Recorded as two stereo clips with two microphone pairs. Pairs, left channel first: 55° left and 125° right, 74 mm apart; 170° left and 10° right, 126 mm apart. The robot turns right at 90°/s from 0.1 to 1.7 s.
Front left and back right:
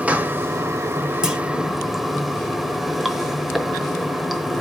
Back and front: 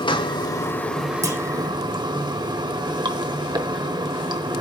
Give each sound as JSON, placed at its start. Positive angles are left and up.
{"t": 0.0, "sound": "running water", "azimuth_deg": 175, "distance_m": 0.9}
{"t": 1.2, "sound": "a clunk", "azimuth_deg": -55, "distance_m": 1.2}